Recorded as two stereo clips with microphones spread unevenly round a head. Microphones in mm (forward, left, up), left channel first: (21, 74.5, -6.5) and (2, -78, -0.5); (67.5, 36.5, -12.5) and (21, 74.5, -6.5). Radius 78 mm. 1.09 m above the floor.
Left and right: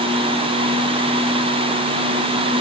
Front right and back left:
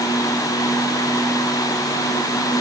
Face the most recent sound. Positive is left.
No sound to turn to.